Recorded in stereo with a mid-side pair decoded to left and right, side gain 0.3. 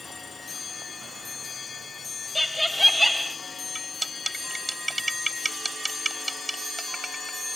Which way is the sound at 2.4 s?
10° left.